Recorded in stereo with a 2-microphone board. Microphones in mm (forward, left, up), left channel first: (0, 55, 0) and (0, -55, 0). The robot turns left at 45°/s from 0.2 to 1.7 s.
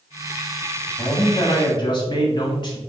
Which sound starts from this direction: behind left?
A man speaking, at 1.0 s.